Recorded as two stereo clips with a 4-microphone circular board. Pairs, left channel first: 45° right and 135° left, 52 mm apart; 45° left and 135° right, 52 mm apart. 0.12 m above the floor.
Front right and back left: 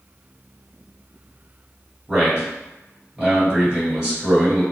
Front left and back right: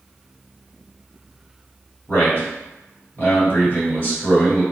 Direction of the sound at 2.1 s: 65° left.